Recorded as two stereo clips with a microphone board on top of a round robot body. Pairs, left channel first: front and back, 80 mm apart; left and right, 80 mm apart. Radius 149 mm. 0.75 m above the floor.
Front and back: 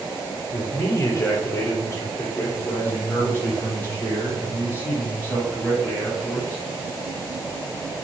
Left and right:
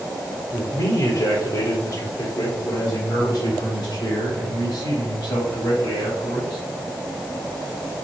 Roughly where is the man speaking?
Ahead left.